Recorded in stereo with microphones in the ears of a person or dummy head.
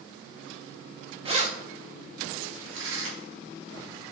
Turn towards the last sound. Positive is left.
turn(degrees=-75)  # may be behind; listen again after turning